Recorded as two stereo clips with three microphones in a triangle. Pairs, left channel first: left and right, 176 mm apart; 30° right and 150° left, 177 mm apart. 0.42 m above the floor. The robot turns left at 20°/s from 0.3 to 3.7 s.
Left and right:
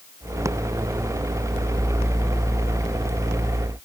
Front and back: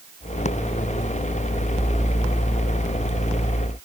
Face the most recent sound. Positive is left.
No sound to turn to.